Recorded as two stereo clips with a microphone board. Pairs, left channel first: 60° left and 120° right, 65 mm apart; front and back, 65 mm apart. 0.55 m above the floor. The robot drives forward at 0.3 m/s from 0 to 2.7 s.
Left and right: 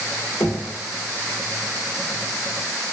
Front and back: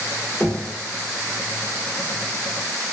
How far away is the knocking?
About 0.6 m.